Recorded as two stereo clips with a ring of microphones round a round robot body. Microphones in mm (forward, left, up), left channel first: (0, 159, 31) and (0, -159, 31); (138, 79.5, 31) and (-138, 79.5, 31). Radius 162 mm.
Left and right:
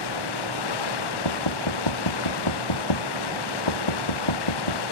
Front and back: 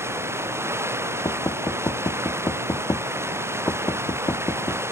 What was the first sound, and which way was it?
Running water, 100° left.